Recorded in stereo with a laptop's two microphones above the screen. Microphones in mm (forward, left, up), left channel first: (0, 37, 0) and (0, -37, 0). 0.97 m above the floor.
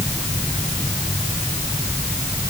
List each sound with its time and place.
Only background noise.